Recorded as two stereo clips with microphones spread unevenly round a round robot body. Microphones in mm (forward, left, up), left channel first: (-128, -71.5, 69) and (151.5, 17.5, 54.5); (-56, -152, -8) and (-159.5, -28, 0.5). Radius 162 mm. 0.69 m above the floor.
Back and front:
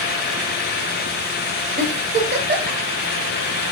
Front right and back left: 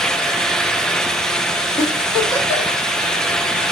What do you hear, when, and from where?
1.8 s a giggle: straight ahead, 1.4 m